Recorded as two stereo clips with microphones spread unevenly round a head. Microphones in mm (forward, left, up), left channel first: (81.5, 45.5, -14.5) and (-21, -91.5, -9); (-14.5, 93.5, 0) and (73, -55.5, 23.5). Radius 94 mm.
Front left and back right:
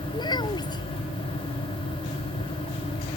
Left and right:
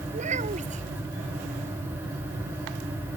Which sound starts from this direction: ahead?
A child speaking, at 0.1 s.